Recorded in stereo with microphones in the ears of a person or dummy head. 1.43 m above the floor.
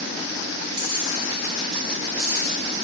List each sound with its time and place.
0.7 s keys jangling: 30° right (ahead or behind), 4.5 m; by 2.5 s 20° right (ahead or behind), 5.5 m